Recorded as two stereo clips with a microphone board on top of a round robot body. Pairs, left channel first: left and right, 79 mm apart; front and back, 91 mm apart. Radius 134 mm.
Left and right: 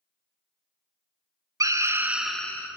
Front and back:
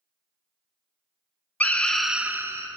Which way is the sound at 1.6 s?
70° right.